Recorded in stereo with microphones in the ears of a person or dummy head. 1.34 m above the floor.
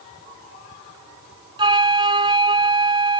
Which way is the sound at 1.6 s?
25° right (ahead or behind).